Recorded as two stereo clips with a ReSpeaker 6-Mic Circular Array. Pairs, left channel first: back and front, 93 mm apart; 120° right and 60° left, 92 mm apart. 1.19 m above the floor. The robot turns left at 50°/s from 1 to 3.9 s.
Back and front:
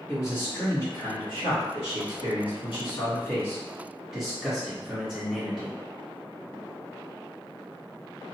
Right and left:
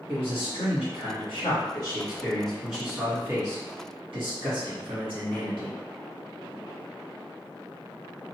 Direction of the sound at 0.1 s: 130° right.